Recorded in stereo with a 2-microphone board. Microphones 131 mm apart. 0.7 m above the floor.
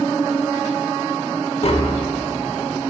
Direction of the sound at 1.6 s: 50° left (ahead or behind).